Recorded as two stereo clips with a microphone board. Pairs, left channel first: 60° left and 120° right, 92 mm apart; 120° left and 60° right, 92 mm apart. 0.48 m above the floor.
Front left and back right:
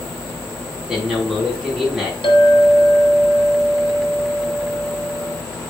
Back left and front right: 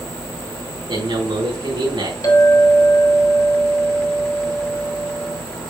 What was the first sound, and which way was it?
A man speaking, 40° right.